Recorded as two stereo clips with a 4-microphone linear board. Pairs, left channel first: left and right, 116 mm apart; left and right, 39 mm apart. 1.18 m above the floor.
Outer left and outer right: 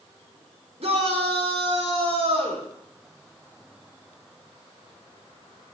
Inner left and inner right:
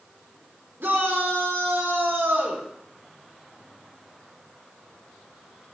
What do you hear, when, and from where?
0.8 s a shout: 65° right (ahead or behind), 4.5 m